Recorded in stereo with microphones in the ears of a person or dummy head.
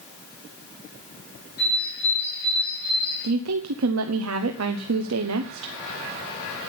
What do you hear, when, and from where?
1.6 s a bird: 55° left (ahead or behind), 8 m
3.2 s a woman speaking: 80° right, 1.0 m